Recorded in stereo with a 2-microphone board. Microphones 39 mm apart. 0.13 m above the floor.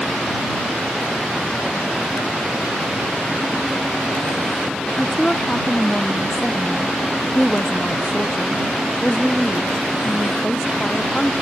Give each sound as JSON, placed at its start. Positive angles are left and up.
{"t": 5.0, "sound": "a woman speaking", "side_deg": 20}